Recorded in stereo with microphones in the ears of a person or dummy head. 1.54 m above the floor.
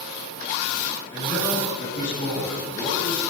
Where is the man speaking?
15° left (ahead or behind), 9 m; by 3.2 s 30° left (ahead or behind), 10 m.